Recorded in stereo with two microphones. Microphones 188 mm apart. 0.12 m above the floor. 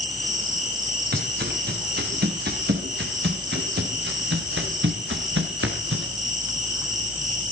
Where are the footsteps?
60° right (ahead or behind), 6.5 m; by 6.1 s 80° right, 5 m.